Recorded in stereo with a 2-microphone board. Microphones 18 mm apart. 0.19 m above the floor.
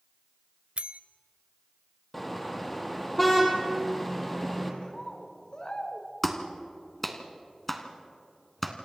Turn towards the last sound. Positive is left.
turn(degrees=10)  # may be behind; listen again after turning